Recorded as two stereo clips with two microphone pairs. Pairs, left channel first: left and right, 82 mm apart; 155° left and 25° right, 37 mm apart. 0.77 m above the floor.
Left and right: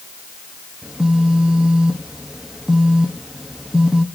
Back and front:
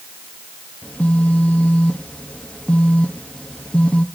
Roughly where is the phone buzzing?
Behind.